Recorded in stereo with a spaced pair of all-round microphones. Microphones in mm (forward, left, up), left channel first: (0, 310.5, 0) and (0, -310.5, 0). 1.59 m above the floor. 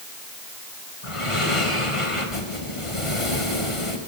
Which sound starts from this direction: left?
Breathing, at 1.0 s.